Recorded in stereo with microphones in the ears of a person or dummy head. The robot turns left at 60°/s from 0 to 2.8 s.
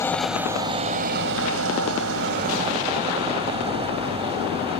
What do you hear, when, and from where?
0.0 s an engine running: 15° left; by 4.8 s 155° right